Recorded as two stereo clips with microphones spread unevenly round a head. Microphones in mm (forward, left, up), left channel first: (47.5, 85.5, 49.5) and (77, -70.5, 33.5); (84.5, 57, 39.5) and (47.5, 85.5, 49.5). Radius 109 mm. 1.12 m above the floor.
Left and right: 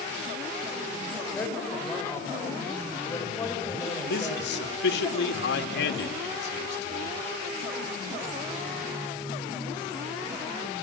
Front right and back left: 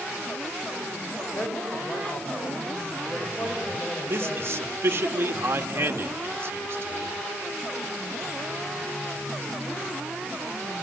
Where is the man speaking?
100° left, 2 m.